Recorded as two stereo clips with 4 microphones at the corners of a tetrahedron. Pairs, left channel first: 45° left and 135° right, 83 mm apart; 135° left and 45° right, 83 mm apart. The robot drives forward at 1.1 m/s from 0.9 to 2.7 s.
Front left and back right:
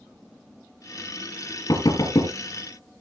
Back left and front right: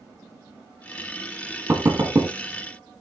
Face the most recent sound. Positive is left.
turn(degrees=15)